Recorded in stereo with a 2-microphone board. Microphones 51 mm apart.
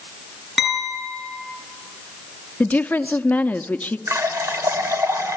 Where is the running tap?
75° right (ahead or behind), 1.5 m.